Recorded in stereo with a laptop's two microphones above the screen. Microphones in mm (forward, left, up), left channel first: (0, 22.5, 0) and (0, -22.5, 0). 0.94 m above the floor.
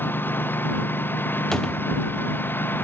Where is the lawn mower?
50° left (ahead or behind).